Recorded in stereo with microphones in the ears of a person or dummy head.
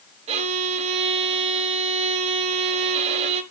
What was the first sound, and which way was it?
A violin, 35° right (ahead or behind).